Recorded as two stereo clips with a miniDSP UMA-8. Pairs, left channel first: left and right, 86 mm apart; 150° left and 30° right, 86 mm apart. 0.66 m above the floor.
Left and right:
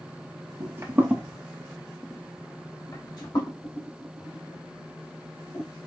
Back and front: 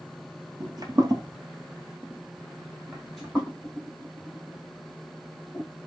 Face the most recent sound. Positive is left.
turn(degrees=75)